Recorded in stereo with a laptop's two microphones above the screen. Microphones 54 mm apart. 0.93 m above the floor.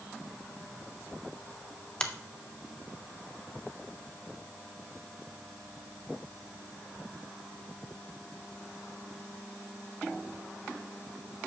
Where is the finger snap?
15° left (ahead or behind), 0.5 m.